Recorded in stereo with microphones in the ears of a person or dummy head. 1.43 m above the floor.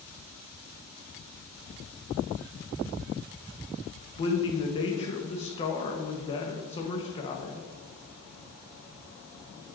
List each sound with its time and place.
4.2 s a man speaking: 35° left (ahead or behind), 1.2 m